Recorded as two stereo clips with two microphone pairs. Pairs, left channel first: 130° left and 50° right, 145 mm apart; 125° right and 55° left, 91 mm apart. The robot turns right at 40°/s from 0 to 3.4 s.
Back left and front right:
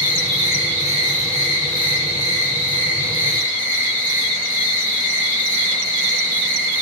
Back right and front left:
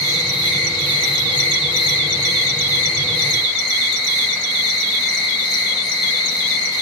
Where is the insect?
175° right, 1.6 m; by 6.8 s 40° right, 1.6 m.